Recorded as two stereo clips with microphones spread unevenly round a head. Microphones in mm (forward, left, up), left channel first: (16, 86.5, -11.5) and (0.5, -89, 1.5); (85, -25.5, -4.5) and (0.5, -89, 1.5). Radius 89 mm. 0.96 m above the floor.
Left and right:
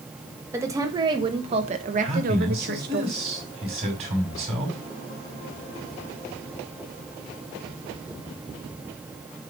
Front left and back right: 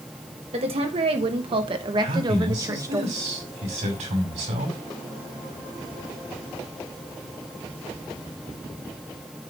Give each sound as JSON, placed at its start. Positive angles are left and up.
{"t": 0.5, "sound": "a woman speaking", "azimuth_deg": -170, "distance_m": 1.4}
{"t": 2.0, "sound": "a man speaking", "azimuth_deg": -150, "distance_m": 5.0}